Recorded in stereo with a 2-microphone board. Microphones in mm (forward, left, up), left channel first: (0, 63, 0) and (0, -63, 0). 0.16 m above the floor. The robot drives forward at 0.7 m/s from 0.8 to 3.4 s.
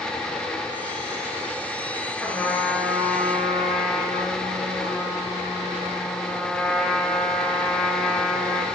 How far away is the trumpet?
About 3 m.